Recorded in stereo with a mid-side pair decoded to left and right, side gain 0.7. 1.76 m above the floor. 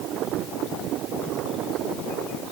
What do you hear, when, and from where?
Only background noise.